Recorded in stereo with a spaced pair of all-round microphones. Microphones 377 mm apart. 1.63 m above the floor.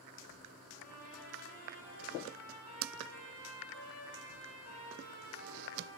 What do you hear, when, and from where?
0.7 s a trumpet: 45° left (ahead or behind), 9.5 m